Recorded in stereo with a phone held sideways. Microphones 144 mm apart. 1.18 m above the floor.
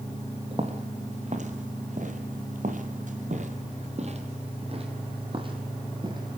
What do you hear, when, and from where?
0.5 s footsteps: 45° right (ahead or behind), 3 m; by 6.4 s 30° right (ahead or behind), 4 m